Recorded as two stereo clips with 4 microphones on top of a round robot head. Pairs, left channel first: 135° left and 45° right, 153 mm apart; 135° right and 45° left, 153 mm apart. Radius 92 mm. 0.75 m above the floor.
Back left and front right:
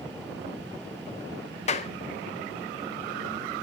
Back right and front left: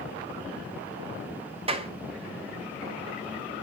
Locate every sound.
1.7 s a clap: 95° left, 1.4 m